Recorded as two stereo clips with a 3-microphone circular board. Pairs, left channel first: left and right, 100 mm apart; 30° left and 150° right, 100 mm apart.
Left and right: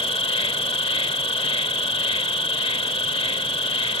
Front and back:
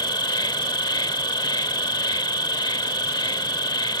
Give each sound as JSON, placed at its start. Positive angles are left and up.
{"t": 0.0, "sound": "an insect", "azimuth_deg": 70}